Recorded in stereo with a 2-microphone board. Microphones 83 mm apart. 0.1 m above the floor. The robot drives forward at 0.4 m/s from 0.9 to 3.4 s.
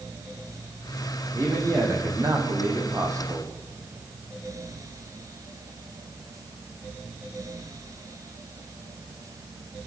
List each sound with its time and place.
1.3 s a man speaking: 35° right (ahead or behind), 6 m; by 3.5 s 40° right (ahead or behind), 5.5 m